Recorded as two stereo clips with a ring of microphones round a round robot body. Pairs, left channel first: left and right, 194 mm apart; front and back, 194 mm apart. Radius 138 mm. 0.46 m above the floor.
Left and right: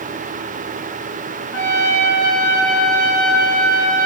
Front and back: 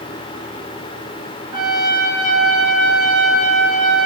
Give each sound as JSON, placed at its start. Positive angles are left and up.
{"t": 1.5, "sound": "a trumpet", "azimuth_deg": 115, "distance_m": 6.0}